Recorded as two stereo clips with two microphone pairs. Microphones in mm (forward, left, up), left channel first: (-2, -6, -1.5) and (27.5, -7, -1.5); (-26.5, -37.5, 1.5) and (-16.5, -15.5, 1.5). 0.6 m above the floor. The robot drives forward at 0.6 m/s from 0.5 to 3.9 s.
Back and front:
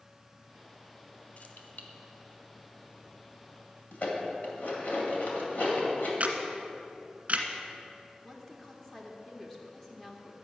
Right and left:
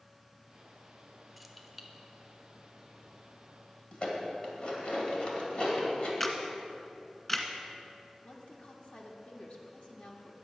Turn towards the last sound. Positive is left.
turn(degrees=-110)